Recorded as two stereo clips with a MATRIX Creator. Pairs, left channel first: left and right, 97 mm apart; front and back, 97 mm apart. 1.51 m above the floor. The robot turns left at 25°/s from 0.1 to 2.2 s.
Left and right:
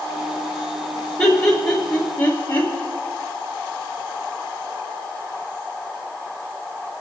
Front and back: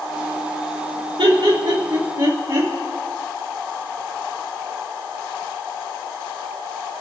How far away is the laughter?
About 3 m.